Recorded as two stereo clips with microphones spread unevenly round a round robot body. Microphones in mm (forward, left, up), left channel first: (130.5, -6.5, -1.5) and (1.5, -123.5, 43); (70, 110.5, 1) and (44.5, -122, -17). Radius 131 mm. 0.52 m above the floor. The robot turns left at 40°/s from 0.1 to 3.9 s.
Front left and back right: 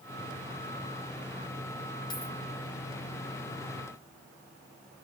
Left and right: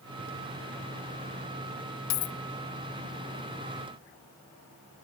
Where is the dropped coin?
120° left, 0.6 m; by 2.4 s 105° left, 0.6 m.